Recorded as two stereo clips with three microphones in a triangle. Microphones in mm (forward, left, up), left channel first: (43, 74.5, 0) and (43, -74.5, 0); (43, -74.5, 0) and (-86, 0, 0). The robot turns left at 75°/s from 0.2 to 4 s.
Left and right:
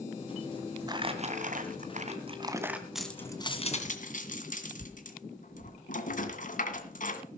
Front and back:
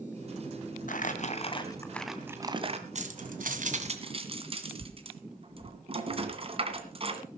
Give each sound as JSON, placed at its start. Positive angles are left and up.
{"t": 0.9, "sound": "crumpling", "azimuth_deg": -30, "distance_m": 2.0}
{"t": 3.0, "sound": "keys jangling", "azimuth_deg": -175, "distance_m": 2.0}